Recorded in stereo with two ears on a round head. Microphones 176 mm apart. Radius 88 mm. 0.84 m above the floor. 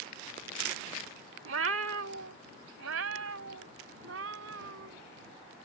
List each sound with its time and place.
1.4 s a cat meowing: 70° right (ahead or behind); by 5.0 s 75° right (ahead or behind)